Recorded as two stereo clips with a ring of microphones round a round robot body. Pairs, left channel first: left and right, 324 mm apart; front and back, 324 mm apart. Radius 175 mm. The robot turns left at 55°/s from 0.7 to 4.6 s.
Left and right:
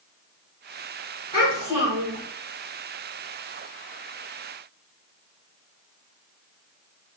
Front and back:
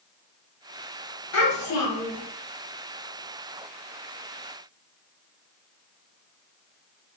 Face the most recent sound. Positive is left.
turn(degrees=-165)